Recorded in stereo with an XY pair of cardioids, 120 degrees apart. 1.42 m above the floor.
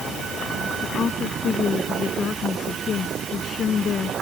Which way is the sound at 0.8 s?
40° left.